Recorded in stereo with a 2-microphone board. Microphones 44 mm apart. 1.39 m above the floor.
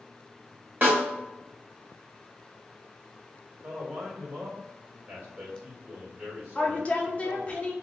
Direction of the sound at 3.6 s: 30° right (ahead or behind).